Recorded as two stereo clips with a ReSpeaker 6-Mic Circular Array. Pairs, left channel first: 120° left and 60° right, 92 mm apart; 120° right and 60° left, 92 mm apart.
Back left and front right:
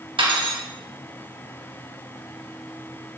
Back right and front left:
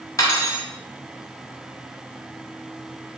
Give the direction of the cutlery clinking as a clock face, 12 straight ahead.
2 o'clock.